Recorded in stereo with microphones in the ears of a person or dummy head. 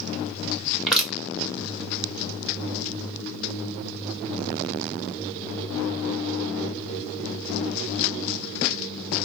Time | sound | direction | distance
0.9 | crushing | centre (ahead or behind) | 2 m